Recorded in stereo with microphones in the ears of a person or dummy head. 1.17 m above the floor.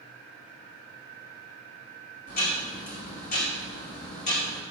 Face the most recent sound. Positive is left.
turn(degrees=50)  # may be behind; listen again after turning